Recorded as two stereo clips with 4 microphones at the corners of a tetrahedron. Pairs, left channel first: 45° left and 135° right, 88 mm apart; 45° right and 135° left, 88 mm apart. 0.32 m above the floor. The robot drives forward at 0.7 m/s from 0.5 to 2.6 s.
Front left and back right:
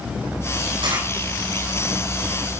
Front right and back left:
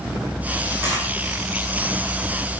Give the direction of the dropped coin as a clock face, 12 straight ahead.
5 o'clock.